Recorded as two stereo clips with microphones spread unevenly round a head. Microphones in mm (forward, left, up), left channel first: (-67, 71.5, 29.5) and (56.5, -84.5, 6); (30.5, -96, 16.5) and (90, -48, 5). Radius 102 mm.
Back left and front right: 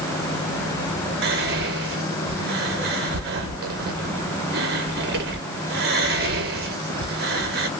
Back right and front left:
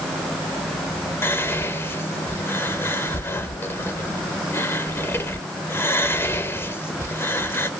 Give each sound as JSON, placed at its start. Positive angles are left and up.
{"t": 1.2, "sound": "whispering", "azimuth_deg": -90, "distance_m": 0.7}